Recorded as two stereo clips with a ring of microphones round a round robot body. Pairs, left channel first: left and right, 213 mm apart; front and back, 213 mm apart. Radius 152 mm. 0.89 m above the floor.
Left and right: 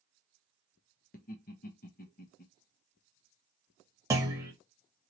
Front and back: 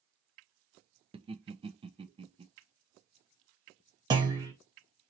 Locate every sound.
1.1 s laughter: 120° left, 0.7 m
4.1 s a clunk: 145° right, 0.6 m